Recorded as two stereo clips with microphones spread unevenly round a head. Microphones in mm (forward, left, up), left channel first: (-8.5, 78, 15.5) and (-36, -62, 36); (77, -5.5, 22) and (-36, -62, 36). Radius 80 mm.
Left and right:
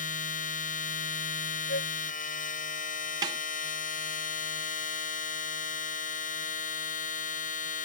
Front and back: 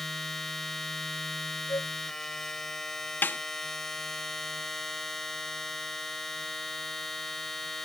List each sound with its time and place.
0.0 s a machine running: 115° left
1.7 s a flute: 100° left
3.2 s a snare drum: 50° right